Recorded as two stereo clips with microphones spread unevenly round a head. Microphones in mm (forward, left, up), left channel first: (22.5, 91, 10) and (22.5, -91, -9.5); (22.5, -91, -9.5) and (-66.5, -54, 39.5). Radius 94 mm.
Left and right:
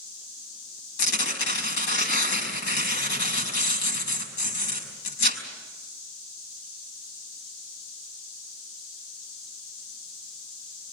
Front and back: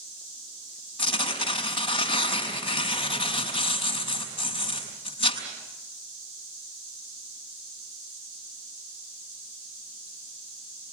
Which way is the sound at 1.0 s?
65° left.